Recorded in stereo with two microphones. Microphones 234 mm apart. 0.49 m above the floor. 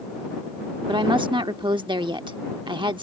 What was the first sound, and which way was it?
A woman speaking, 20° right (ahead or behind).